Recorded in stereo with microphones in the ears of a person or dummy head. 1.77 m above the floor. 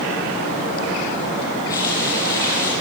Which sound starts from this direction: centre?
Frying, at 1.7 s.